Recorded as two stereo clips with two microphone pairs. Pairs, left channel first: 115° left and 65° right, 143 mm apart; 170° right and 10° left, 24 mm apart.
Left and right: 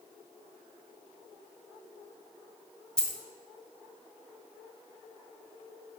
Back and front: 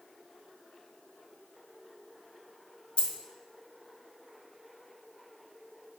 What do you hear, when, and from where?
3.0 s a dropped coin: 165° right, 0.5 m